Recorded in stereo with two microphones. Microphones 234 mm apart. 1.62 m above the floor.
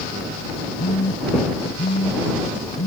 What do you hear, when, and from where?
0.8 s a phone buzzing: 85° left